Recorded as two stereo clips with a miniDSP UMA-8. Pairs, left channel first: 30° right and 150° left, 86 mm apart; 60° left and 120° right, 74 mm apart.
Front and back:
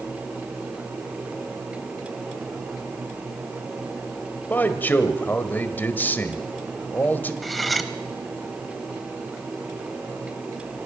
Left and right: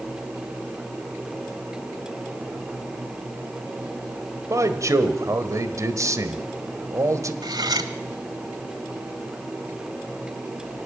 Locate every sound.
4.5 s a man speaking: 95° right, 1.6 m
7.4 s cutlery clinking: 120° right, 1.1 m